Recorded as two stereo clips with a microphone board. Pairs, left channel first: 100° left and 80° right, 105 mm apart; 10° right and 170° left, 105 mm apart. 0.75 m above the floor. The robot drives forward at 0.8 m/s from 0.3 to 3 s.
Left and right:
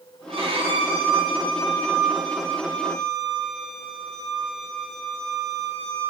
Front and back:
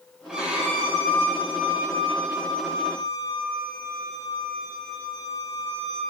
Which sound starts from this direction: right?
A violin, at 0.3 s.